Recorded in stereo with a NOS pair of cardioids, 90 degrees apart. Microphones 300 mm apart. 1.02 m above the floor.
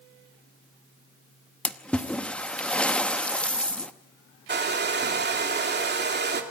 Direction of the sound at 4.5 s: 35° right.